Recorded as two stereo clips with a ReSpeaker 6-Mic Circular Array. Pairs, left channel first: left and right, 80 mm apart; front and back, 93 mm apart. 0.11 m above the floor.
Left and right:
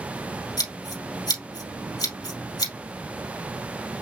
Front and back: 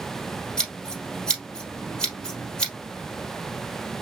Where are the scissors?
80° left, 2.5 m.